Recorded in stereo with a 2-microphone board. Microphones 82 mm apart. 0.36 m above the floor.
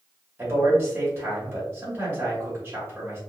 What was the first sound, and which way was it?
A man speaking, 25° right (ahead or behind).